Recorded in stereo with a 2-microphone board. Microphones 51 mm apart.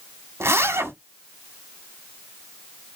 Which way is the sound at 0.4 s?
60° right (ahead or behind).